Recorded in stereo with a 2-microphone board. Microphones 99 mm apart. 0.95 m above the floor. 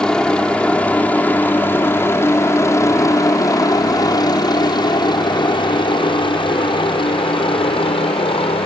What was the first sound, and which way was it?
A helicopter, 10° left (ahead or behind).